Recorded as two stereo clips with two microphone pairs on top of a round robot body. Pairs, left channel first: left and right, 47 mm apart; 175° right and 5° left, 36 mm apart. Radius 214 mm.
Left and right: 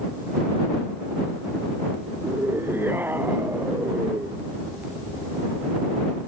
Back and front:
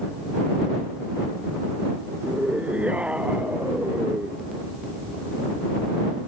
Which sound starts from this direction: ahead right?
A scream, at 2.2 s.